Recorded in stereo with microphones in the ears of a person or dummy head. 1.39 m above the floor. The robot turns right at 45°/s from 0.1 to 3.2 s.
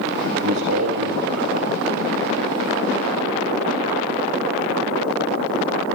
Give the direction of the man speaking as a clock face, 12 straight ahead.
3 o'clock.